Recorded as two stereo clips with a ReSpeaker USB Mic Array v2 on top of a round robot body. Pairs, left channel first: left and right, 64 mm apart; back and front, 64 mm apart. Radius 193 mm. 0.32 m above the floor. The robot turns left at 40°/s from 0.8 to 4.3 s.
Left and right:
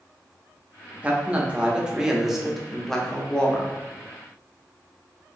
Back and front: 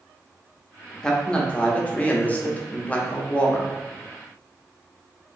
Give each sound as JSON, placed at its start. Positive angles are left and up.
{"t": 1.0, "sound": "a man speaking", "azimuth_deg": -120, "distance_m": 0.8}